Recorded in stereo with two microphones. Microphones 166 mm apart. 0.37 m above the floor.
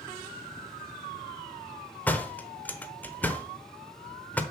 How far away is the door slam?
About 0.9 m.